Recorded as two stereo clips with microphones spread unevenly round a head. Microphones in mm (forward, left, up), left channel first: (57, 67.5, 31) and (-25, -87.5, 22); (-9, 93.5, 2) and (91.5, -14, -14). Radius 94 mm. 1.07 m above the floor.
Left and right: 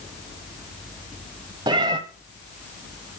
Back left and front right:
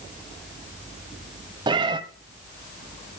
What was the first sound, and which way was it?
A cat meowing, 75° right.